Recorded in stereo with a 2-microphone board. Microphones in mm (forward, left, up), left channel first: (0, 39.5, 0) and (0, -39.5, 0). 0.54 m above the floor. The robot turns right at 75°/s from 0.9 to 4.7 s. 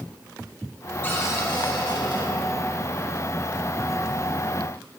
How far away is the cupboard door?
About 2.5 m.